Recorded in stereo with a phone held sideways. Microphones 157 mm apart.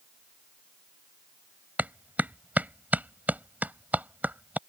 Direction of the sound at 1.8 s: 10° right (ahead or behind).